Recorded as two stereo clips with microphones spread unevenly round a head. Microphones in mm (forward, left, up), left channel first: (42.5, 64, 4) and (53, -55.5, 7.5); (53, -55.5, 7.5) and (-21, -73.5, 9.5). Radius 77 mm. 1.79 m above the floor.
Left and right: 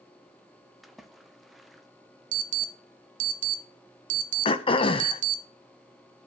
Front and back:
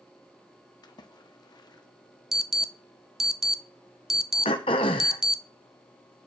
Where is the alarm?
80° right, 0.9 m.